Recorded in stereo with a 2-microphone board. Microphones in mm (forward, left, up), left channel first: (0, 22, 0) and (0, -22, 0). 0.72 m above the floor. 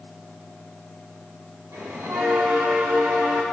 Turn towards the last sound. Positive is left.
turn(degrees=-90)